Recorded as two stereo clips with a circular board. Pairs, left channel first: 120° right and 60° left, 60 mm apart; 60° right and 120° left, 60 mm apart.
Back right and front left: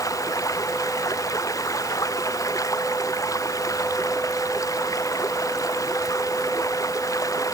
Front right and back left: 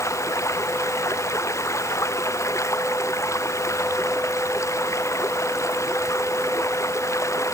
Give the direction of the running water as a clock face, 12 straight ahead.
3 o'clock.